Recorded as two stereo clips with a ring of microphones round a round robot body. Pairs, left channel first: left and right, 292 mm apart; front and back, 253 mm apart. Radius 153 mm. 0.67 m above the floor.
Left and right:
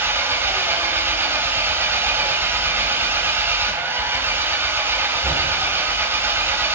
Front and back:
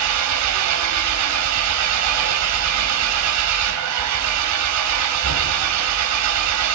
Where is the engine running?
170° right, 4 m.